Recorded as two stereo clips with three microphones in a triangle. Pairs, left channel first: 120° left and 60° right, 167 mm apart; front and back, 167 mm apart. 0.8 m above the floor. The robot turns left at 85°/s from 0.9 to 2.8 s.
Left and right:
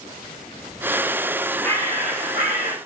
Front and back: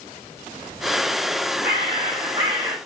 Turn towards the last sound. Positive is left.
turn(degrees=95)